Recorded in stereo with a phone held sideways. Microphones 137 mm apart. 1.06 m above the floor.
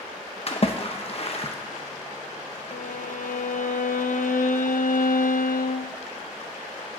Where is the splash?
45° left (ahead or behind), 1.0 m.